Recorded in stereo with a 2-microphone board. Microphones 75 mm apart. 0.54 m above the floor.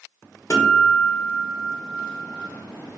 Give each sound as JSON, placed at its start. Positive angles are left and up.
{"t": 0.5, "sound": "a guitar", "side_deg": 40, "distance_m": 1.0}